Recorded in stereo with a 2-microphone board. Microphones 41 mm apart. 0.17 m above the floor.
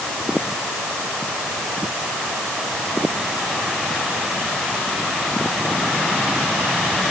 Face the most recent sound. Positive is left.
No sound to turn to.